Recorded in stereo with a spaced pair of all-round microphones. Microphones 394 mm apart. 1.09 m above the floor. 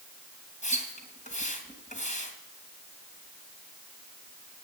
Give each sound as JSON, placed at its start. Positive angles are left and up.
{"t": 0.6, "sound": "a splash", "side_deg": 20, "distance_m": 3.0}